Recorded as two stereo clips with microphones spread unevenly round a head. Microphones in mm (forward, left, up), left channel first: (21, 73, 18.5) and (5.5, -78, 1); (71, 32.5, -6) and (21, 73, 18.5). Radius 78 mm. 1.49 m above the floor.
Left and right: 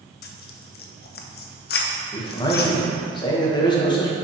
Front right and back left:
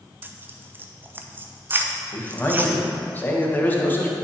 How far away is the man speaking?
About 1.7 m.